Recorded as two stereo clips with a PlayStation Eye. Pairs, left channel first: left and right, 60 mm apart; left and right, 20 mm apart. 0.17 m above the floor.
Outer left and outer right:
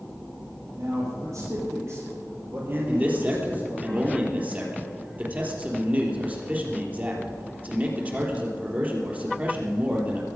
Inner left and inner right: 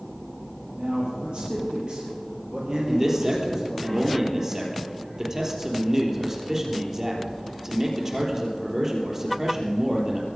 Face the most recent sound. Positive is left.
turn(degrees=-25)  # may be behind; listen again after turning